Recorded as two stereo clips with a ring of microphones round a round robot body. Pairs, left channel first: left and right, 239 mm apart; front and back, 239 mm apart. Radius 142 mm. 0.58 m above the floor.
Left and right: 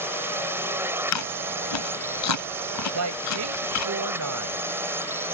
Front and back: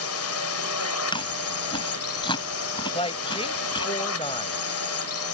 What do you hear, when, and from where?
0.0 s a drone: 10° right
1.1 s chewing: 75° left
2.9 s a woman speaking: 70° right